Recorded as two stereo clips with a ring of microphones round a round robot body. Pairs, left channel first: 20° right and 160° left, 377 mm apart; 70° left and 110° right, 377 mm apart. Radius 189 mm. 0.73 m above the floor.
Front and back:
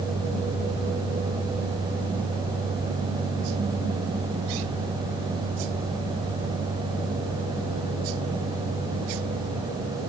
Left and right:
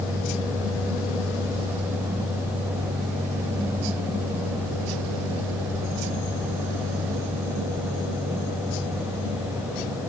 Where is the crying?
No crying in this recording.